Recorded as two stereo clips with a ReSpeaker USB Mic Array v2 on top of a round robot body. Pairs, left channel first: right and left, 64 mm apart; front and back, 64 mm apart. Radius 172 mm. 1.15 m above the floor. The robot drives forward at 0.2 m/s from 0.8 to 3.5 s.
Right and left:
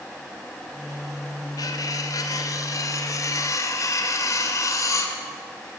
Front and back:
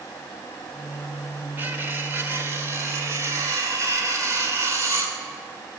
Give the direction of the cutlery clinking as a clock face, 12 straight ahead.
4 o'clock.